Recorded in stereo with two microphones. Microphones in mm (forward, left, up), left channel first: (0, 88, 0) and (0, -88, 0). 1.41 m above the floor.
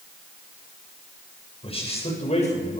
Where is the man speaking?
35° left (ahead or behind), 7.5 m; by 2.8 s 45° left (ahead or behind), 7.5 m.